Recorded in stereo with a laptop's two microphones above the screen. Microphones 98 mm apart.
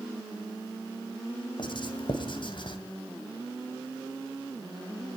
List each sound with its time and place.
1.6 s writing: 55° left (ahead or behind), 2.5 m